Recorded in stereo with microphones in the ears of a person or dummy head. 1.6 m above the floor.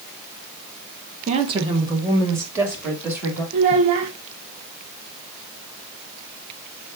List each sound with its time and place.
1.3 s a woman speaking: 40° right (ahead or behind), 1.2 m; by 3.4 s 10° right (ahead or behind), 3.5 m
3.5 s a child speaking: 30° right (ahead or behind), 0.5 m